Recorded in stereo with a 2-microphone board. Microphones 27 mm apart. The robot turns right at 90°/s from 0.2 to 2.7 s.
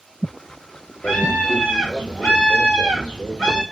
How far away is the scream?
About 1.6 m.